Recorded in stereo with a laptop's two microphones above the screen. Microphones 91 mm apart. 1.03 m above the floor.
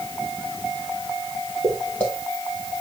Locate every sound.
1.6 s footsteps: 15° left (ahead or behind), 6 m